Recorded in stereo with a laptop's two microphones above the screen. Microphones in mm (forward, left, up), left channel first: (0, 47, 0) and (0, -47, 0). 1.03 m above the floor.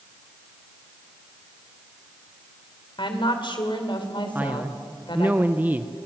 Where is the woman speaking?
60° left (ahead or behind), 3 m.